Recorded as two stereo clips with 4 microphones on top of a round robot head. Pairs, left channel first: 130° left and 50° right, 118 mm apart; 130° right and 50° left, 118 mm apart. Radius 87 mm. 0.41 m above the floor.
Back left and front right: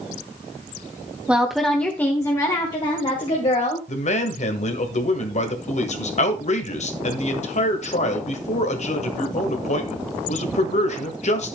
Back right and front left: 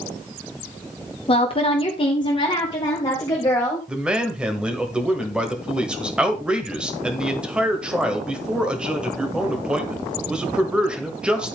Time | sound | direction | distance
1.3 | a woman speaking | 125° right | 1.3 m
3.9 | a man speaking | 130° left | 1.8 m